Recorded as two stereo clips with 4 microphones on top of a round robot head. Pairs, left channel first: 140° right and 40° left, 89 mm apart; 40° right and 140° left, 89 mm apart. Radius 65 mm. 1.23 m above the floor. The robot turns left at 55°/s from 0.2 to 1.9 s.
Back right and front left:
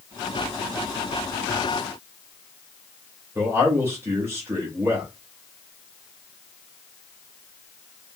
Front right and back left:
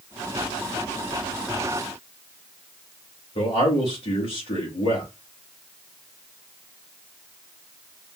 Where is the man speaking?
25° right, 3 m.